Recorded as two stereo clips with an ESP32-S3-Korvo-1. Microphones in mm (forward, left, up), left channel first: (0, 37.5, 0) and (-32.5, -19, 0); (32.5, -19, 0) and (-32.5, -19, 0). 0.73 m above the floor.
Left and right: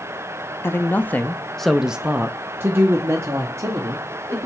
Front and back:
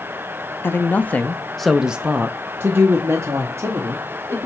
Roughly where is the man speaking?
Ahead left.